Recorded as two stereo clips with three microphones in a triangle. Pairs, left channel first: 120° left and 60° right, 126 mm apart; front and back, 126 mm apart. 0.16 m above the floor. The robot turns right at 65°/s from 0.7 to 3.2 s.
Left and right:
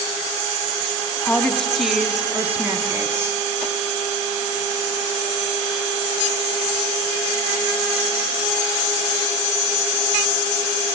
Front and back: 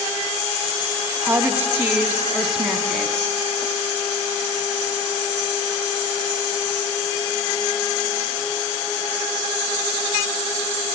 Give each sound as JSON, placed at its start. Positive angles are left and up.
{"t": 1.2, "sound": "a woman speaking", "azimuth_deg": 170, "distance_m": 1.0}